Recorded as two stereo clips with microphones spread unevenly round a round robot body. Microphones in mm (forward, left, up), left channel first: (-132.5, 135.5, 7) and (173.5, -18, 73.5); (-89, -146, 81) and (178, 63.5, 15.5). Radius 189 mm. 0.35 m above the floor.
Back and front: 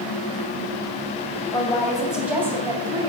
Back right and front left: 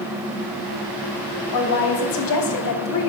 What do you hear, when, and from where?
1.5 s a woman speaking: 130° right, 2.5 m; by 3.1 s 110° right, 3.5 m